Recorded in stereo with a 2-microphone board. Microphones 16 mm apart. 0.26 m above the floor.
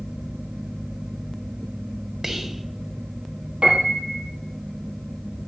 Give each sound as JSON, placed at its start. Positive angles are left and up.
{"t": 2.2, "sound": "whispering", "side_deg": -25, "distance_m": 1.4}
{"t": 3.6, "sound": "a piano", "side_deg": -85, "distance_m": 3.0}